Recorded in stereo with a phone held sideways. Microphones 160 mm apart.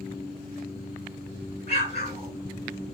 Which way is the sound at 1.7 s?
70° right (ahead or behind).